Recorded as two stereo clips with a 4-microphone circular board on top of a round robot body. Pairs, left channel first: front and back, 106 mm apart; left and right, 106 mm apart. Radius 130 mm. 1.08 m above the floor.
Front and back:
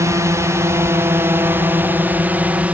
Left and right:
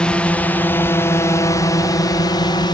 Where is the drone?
160° left; by 2.8 s 105° left.